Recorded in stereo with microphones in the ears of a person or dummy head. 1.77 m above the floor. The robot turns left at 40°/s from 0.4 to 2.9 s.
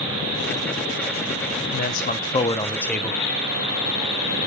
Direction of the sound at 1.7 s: 55° left.